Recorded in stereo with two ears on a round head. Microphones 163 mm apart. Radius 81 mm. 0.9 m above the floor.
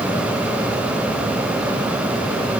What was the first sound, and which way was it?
Only background noise.